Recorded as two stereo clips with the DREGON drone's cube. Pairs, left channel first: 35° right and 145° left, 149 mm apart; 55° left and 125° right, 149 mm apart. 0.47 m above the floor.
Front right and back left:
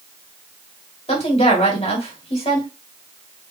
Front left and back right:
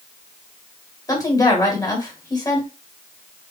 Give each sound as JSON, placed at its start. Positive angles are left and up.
{"t": 1.1, "sound": "a woman speaking", "azimuth_deg": -5, "distance_m": 1.9}